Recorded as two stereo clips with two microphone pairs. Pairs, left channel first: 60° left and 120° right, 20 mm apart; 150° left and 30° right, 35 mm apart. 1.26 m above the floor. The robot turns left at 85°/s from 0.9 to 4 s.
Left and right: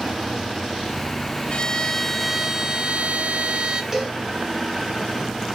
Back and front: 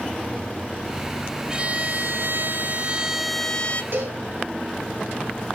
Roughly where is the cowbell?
Ahead right.